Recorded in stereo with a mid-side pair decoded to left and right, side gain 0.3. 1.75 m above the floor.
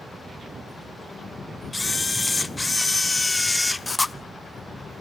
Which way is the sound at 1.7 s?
25° left.